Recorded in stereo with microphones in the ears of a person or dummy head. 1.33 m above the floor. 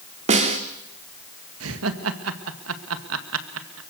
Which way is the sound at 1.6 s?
80° right.